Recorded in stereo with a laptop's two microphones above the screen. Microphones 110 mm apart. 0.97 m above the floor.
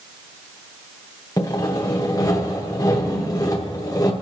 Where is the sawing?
30° left (ahead or behind), 0.8 m.